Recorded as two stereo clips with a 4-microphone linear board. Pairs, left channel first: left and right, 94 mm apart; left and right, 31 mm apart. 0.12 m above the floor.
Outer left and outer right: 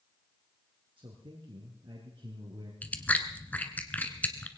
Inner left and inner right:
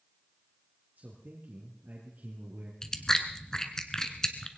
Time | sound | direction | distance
1.0 | a man speaking | 60° right (ahead or behind) | 3 m
2.8 | chewing | 15° left (ahead or behind) | 1.3 m